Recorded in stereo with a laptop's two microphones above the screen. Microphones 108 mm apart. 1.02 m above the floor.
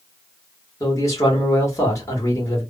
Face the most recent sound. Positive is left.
turn(degrees=30)  # may be behind; listen again after turning